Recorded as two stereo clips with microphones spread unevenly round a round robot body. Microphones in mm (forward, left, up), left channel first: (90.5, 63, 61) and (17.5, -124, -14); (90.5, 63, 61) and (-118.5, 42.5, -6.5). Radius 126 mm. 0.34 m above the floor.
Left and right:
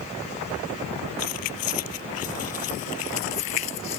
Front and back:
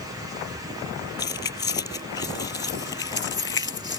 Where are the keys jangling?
75° left.